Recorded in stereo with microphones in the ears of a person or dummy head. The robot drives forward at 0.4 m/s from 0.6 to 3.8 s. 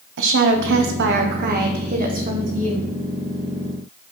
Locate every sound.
0.2 s a woman speaking: 55° right (ahead or behind), 1.0 m; by 2.9 s 30° right (ahead or behind), 1.7 m